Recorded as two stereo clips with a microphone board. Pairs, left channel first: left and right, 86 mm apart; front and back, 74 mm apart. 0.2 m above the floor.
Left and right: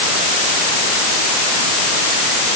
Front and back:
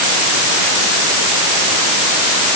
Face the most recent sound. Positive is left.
No sound to turn to.